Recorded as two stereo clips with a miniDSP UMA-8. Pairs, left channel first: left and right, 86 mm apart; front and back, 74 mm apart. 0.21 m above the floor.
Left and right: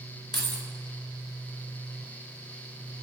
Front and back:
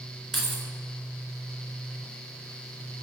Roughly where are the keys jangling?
Left.